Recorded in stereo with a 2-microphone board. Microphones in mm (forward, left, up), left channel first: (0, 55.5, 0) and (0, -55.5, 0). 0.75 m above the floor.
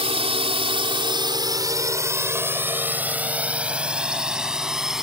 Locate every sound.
0.0 s a drone: 60° right (ahead or behind); by 5.0 s 5° right (ahead or behind)